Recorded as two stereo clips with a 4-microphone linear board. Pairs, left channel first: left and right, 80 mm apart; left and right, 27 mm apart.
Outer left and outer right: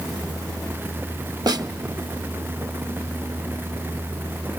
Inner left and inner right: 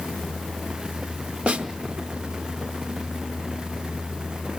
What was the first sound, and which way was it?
A snare drum, 55° right (ahead or behind).